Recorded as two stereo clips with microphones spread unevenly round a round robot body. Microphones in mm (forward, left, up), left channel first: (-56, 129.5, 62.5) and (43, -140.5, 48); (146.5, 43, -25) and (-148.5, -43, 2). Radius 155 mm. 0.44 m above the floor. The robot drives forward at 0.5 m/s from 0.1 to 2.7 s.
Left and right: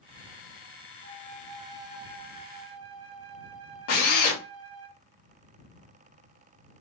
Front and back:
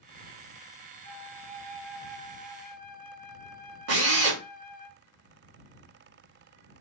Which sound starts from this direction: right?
A flute, at 1.0 s.